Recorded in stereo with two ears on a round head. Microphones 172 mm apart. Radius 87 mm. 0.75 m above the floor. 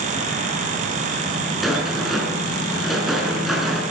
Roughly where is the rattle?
Centre.